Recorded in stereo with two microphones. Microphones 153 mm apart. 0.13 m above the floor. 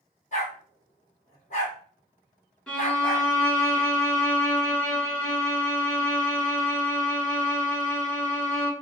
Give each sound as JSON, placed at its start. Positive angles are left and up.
{"t": 0.3, "sound": "a dog barking", "side_deg": 50, "distance_m": 2.5}
{"t": 2.7, "sound": "a violin", "side_deg": 5, "distance_m": 1.3}